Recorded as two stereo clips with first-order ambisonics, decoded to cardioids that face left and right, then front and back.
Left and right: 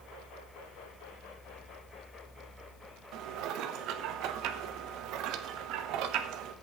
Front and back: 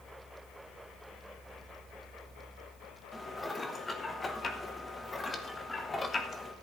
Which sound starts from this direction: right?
Dishes clattering, at 3.1 s.